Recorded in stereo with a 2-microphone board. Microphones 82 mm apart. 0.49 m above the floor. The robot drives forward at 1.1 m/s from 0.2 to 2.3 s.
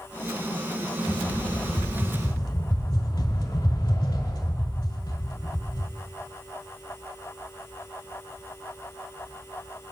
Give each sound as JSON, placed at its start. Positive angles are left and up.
{"t": 1.1, "sound": "a rattle", "side_deg": 55, "distance_m": 1.5}